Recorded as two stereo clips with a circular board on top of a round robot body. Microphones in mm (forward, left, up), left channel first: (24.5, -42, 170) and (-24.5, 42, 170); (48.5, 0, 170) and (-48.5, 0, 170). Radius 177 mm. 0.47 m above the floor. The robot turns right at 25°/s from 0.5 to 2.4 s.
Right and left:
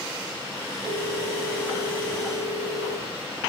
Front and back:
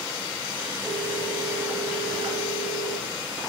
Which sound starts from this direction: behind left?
A phone ringing, at 0.8 s.